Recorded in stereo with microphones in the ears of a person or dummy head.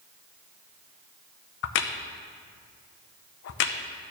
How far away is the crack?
About 0.6 m.